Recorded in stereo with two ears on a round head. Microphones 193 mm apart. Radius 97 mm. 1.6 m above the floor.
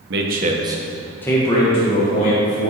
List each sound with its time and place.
0.1 s a man speaking: 55° right (ahead or behind), 1.1 m; by 2.7 s 40° left (ahead or behind), 2.5 m